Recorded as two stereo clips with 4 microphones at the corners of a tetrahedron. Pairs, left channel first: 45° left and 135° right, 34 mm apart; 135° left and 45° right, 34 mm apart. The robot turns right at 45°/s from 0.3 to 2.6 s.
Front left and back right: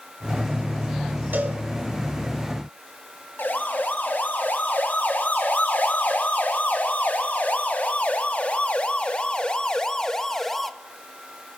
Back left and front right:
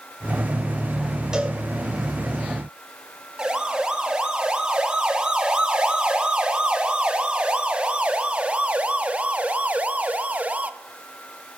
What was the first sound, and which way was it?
A cowbell, 115° right.